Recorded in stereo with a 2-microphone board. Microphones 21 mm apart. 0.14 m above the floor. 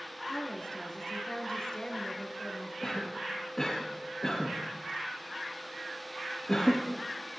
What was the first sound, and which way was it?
A woman speaking, 40° left (ahead or behind).